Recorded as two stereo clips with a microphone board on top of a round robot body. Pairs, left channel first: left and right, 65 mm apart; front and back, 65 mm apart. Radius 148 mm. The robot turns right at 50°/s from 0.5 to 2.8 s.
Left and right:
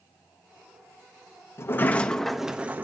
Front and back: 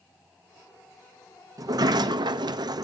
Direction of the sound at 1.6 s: 145° left.